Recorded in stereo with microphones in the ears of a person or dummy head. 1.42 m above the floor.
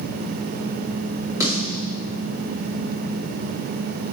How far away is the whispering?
No whispering in this recording.